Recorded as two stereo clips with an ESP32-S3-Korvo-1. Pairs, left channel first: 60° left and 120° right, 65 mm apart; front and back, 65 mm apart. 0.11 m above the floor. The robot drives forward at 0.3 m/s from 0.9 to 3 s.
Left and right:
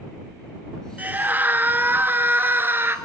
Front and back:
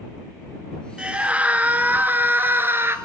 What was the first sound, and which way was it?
A scream, 125° right.